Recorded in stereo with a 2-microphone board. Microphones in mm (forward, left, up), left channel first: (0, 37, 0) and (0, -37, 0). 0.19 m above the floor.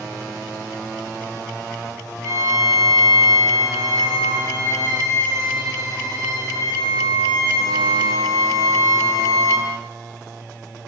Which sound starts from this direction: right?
A violin, at 2.2 s.